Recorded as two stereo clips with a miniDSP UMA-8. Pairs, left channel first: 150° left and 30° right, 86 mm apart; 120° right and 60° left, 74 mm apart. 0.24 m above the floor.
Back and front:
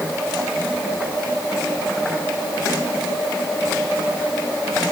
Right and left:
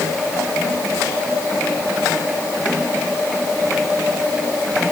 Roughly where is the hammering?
No hammering in this recording.